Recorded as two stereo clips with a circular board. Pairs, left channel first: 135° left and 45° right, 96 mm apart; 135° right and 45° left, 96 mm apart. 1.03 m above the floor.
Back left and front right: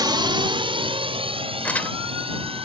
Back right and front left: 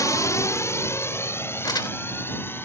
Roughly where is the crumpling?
Behind right.